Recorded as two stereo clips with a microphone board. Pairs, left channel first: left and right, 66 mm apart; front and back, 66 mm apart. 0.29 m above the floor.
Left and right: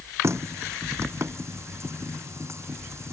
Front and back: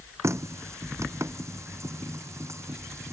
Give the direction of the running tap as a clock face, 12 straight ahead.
5 o'clock.